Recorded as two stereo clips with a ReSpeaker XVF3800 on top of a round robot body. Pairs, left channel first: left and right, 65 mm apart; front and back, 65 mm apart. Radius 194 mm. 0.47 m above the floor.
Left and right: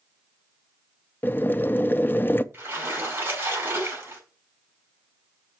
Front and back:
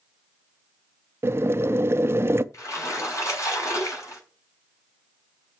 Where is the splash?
35° right, 6.5 m.